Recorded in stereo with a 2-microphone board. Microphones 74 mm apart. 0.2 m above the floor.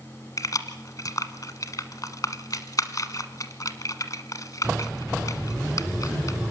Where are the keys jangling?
50° left (ahead or behind), 1.2 m.